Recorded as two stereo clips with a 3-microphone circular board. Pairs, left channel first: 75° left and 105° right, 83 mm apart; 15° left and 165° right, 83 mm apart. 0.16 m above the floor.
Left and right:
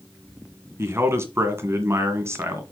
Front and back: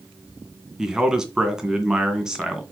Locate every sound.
0.8 s a man speaking: 85° right, 1.8 m